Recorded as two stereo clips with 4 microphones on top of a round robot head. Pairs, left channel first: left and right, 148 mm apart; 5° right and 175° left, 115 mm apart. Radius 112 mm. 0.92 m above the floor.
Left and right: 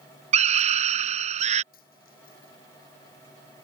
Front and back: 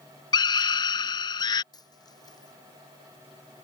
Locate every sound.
0.3 s a scream: 55° right
1.7 s a dropped coin: 50° left